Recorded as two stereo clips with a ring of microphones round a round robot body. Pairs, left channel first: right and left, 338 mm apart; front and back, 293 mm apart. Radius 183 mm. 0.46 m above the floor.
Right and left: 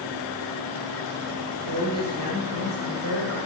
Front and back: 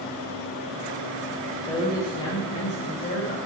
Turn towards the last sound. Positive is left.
turn(degrees=55)